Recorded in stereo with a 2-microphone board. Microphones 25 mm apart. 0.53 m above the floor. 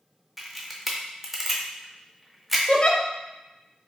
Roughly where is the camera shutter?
Centre.